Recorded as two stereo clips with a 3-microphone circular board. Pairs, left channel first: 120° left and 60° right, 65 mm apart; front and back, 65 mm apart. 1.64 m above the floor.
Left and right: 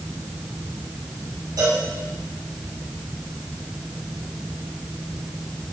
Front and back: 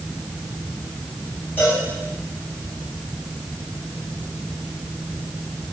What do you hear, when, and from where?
1.6 s a cowbell: 60° right, 7 m